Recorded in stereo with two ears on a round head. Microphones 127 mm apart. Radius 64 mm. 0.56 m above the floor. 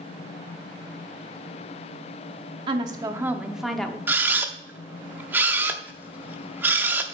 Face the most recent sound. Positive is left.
turn(degrees=-15)  # may be behind; listen again after turning